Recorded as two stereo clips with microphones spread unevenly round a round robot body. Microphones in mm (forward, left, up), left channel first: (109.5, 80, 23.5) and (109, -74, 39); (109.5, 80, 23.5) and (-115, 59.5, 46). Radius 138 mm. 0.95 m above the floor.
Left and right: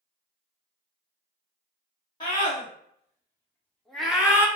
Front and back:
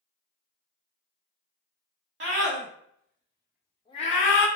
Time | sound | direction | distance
2.2 | a scream | 150° left | 1.3 m